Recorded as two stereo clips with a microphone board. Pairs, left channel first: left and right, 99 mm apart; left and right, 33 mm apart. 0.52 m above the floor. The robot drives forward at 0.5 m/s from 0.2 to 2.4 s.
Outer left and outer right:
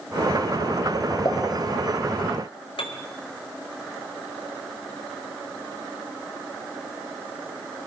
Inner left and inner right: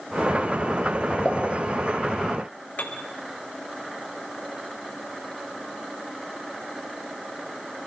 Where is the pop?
40° left (ahead or behind), 5 m.